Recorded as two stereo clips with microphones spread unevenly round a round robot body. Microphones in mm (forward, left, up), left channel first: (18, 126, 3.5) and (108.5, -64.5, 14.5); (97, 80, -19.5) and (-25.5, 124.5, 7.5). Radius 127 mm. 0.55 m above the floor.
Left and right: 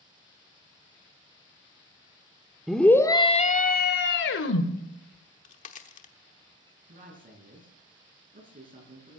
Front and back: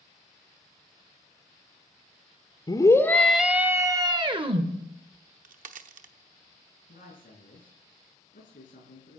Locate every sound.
2.7 s a scream: 25° left, 1.5 m; by 4.7 s 110° left, 2 m
5.1 s a crack: 165° left, 1.0 m
6.9 s a man speaking: 15° right, 6 m